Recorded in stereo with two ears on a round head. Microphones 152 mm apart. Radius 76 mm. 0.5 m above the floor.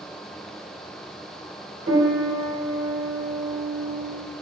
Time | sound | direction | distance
1.9 | a piano | 65° right (ahead or behind) | 2.0 m